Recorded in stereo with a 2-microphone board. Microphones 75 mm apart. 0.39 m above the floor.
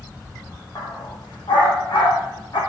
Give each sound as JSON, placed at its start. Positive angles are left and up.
{"t": 0.8, "sound": "a dog barking", "side_deg": 65, "distance_m": 7.5}